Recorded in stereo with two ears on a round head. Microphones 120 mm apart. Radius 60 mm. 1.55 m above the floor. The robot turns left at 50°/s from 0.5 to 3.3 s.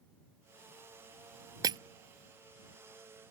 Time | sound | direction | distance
1.6 | breaking glass | 25° right (ahead or behind) | ?